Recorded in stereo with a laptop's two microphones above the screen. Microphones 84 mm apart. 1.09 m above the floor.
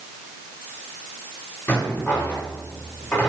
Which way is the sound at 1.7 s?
25° left (ahead or behind).